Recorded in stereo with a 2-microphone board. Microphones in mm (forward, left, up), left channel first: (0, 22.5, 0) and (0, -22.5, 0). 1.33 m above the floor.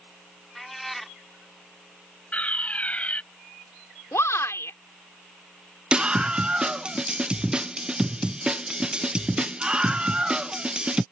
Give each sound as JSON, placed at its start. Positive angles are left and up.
{"t": 0.6, "sound": "a cat meowing", "side_deg": 0}
{"t": 2.3, "sound": "a fire alarm", "side_deg": 30}
{"t": 4.1, "sound": "a shout", "side_deg": 90}
{"t": 5.9, "sound": "a scream", "side_deg": -20}